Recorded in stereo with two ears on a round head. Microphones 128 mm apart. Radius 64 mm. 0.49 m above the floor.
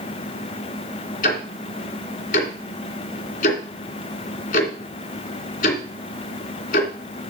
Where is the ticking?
60° left (ahead or behind), 2.5 m.